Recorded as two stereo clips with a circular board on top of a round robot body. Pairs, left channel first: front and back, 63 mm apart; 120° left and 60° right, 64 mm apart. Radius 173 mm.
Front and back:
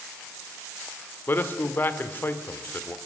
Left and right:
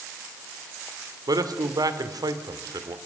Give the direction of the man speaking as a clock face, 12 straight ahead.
2 o'clock.